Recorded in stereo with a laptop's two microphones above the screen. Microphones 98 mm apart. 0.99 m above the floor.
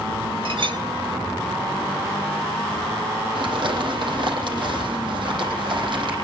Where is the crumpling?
55° right (ahead or behind), 9.5 m.